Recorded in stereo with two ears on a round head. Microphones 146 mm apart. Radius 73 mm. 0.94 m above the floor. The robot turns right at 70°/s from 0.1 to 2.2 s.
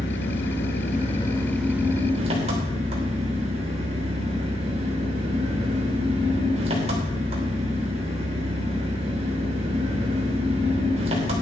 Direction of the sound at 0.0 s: 70° left.